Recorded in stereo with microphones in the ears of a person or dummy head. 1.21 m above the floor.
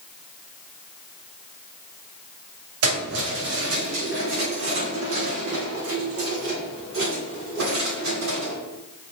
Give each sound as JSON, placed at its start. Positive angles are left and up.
{"t": 2.8, "sound": "keys jangling", "side_deg": -85, "distance_m": 5.0}